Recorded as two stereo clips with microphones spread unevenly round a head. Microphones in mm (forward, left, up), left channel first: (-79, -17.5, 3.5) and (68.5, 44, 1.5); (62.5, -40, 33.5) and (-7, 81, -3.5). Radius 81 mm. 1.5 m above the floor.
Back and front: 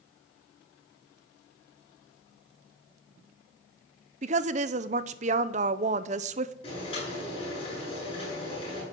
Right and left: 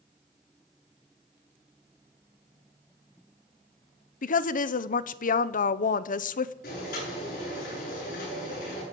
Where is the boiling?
95° right, 10 m.